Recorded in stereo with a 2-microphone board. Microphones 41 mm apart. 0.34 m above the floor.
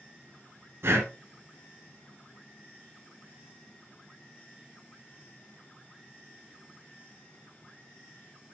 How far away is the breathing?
About 1.6 m.